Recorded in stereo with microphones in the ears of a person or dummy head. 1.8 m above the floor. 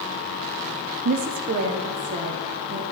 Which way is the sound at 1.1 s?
45° right (ahead or behind).